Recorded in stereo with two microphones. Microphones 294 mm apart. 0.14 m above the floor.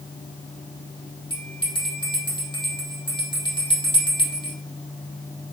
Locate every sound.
1.3 s a bell: 15° left (ahead or behind), 3 m